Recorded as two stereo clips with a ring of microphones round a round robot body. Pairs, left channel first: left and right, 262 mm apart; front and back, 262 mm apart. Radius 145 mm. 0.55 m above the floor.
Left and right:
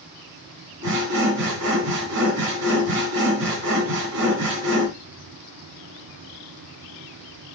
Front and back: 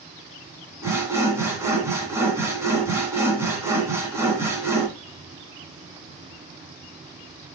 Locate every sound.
0.8 s sawing: 100° right, 2 m